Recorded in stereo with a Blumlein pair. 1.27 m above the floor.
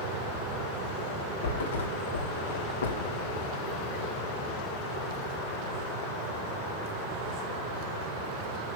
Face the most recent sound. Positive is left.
turn(degrees=65)